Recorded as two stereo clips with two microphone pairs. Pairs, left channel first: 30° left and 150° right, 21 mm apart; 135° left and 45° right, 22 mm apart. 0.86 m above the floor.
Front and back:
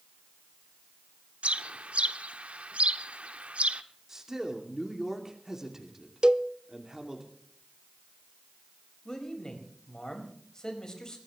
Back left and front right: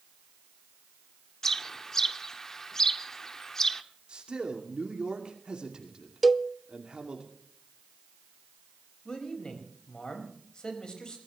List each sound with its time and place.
1.4 s a bird: 155° right, 0.9 m
4.1 s a man speaking: 90° right, 2.5 m
6.2 s a cowbell: 130° right, 0.6 m
9.1 s a man speaking: 85° left, 5 m